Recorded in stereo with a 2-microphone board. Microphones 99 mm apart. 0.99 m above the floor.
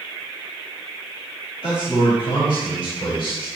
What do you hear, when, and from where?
1.6 s a man speaking: 65° left (ahead or behind), 5 m; by 3.5 s 55° left (ahead or behind), 4.5 m